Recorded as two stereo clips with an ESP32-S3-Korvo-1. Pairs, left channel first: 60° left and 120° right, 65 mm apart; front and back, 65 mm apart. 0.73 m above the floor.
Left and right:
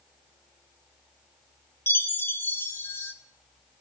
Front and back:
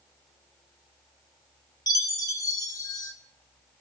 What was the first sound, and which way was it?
A chime, 10° left.